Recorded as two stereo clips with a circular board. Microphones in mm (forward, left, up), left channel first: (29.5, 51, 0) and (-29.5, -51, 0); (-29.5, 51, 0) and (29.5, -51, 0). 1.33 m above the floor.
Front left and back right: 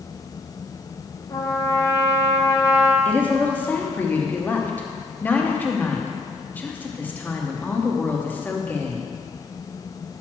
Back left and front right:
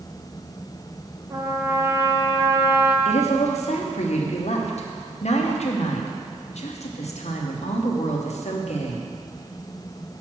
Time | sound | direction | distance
1.3 | a trumpet | 5° left | 0.9 m
3.0 | a woman speaking | 135° left | 1.0 m